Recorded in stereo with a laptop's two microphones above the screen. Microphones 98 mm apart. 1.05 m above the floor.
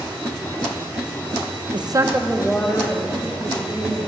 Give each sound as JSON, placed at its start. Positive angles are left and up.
{"t": 1.7, "sound": "a woman speaking", "side_deg": -55, "distance_m": 0.8}